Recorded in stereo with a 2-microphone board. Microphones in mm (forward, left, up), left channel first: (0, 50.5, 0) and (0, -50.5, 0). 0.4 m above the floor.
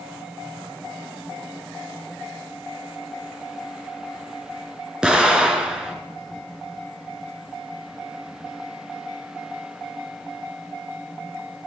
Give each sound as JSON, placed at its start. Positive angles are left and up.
{"t": 5.0, "sound": "an explosion", "side_deg": -10, "distance_m": 2.5}